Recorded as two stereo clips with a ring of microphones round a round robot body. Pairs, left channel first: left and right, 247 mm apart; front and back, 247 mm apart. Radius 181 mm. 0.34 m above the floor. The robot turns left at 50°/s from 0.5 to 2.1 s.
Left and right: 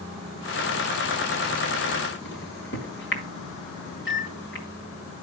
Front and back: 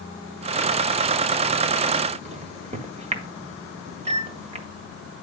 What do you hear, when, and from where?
2.2 s a microwave: 120° left, 1.9 m